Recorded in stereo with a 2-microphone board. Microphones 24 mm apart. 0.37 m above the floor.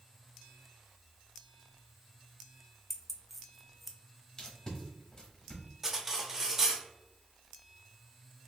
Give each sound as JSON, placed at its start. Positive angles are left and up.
{"t": 2.9, "sound": "keys jangling", "side_deg": 0, "distance_m": 0.5}
{"t": 4.4, "sound": "tape being pulled", "side_deg": 25, "distance_m": 1.3}
{"t": 5.8, "sound": "cutlery clinking", "side_deg": -15, "distance_m": 0.6}